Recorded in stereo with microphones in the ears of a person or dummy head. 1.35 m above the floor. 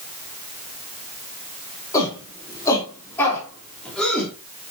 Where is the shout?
15° left (ahead or behind), 5 m; by 4.3 s 5° left (ahead or behind), 3.5 m.